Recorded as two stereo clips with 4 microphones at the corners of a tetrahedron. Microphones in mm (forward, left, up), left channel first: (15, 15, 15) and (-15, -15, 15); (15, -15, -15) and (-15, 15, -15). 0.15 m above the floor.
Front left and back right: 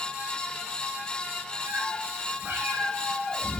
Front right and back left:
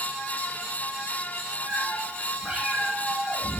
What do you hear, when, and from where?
1.7 s a cat meowing: 150° right, 3.5 m